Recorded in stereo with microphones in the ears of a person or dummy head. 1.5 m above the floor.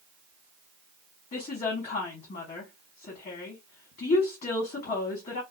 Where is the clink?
No clink in this recording.